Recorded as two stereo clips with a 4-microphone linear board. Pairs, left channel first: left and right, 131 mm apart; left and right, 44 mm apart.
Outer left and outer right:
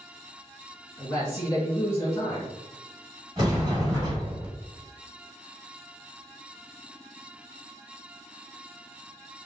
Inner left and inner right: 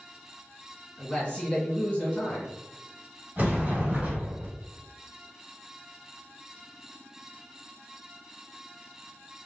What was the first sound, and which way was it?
A man speaking, 25° left (ahead or behind).